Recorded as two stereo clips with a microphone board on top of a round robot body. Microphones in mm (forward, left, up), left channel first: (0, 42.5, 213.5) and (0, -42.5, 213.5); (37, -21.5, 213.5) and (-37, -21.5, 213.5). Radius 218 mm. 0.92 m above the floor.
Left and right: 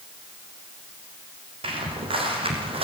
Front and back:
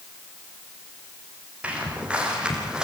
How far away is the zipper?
No zipper in this recording.